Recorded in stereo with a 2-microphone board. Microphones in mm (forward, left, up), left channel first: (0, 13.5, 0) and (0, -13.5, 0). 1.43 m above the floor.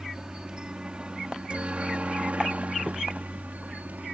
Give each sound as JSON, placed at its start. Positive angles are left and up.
{"t": 0.0, "sound": "a helicopter", "side_deg": -25}